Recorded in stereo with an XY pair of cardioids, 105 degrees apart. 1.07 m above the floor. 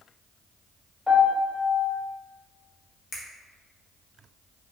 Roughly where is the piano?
Ahead.